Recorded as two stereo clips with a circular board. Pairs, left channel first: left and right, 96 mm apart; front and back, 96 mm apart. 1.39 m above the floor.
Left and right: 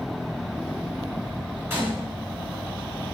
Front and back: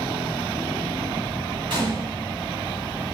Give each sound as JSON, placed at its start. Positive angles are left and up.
{"t": 1.7, "sound": "a gunshot", "azimuth_deg": -155, "distance_m": 1.9}